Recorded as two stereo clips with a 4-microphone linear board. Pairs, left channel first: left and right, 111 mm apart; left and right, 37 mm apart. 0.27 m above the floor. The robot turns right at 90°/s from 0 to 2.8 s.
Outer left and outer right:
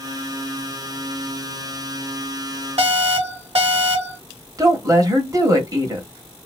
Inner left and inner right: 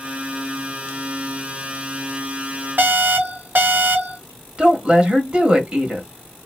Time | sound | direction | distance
2.8 | an alarm | 65° right (ahead or behind) | 1.2 m
4.6 | a woman speaking | 30° right (ahead or behind) | 1.2 m